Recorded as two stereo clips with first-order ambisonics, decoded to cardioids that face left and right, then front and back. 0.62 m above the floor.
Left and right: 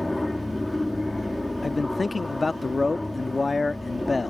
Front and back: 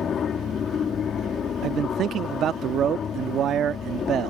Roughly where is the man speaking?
Behind.